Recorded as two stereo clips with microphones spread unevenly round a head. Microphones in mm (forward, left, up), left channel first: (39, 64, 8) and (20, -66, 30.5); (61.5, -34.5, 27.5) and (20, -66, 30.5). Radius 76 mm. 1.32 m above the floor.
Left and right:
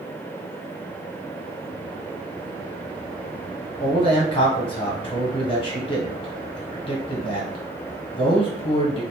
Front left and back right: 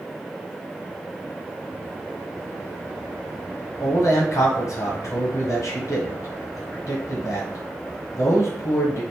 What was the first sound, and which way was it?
A man speaking, 40° left.